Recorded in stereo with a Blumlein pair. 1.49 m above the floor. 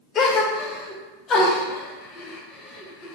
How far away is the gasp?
About 0.6 m.